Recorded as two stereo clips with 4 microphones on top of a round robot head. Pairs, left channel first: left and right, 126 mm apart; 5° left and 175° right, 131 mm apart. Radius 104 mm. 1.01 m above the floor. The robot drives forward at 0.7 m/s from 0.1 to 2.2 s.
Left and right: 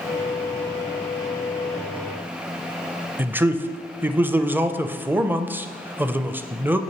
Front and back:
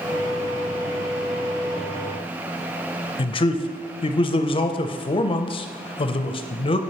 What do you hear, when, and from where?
3.2 s a man speaking: 20° right, 0.5 m